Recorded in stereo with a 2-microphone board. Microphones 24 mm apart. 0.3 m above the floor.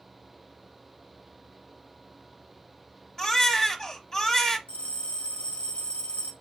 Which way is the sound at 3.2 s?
20° left (ahead or behind).